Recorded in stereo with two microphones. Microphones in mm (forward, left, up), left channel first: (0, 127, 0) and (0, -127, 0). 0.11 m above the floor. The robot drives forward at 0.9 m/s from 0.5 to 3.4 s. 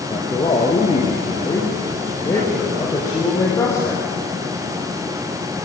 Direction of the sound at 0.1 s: 20° left (ahead or behind).